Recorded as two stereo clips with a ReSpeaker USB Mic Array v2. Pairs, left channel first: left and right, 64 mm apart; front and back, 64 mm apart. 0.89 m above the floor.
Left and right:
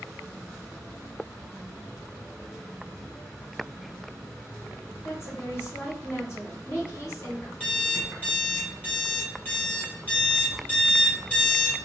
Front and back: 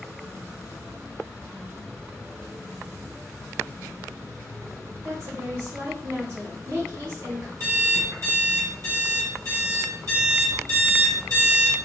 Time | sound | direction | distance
5.0 | a woman speaking | 135° left | 1.8 m
7.6 | an alarm clock | 155° left | 1.8 m